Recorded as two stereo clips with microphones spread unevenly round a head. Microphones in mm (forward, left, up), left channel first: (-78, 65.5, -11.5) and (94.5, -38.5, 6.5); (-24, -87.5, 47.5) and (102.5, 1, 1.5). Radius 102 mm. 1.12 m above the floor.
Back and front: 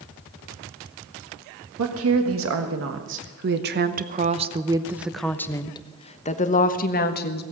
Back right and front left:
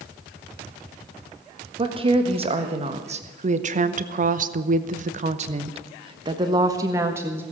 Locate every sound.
1.8 s a woman speaking: 15° right, 1.9 m; by 7.4 s 110° left, 1.7 m